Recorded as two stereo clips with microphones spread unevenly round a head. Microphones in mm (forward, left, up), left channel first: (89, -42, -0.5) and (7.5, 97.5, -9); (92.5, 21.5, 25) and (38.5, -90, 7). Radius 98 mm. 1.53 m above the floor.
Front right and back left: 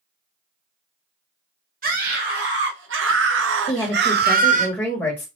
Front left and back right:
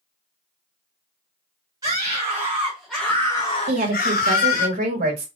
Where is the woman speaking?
140° right, 1.5 m.